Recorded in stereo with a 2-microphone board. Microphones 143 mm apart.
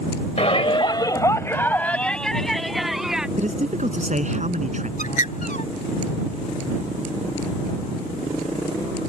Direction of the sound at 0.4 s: 50° left (ahead or behind).